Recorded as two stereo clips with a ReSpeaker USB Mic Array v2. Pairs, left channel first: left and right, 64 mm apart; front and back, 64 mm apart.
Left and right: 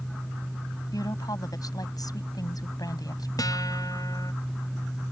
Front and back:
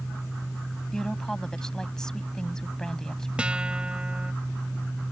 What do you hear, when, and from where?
0.9 s a woman speaking: 80° left
3.4 s a guitar: 105° left